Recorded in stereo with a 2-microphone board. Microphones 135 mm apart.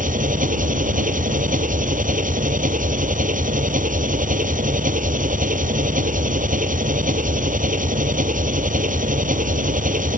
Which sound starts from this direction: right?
An engine running, at 0.0 s.